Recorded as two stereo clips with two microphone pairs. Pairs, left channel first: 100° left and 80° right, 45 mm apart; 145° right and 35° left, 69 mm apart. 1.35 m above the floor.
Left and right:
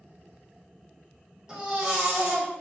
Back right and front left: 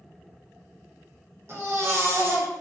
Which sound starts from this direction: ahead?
A baby crying, at 1.5 s.